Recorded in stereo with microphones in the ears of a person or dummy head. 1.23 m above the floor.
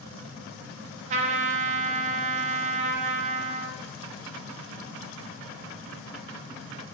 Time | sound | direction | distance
1.1 | a trumpet | 30° right (ahead or behind) | 0.5 m